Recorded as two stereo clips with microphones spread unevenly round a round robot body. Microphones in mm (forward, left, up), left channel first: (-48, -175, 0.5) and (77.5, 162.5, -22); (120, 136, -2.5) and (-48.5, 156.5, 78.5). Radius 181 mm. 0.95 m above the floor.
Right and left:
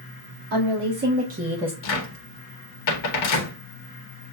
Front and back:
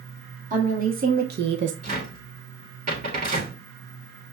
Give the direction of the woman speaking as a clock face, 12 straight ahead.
8 o'clock.